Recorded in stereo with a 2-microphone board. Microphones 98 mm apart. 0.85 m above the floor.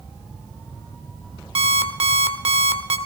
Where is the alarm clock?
85° right, 1.3 m.